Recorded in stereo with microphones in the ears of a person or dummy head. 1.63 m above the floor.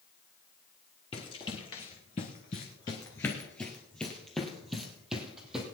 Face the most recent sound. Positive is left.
turn(degrees=0)  # may be behind; listen again after turning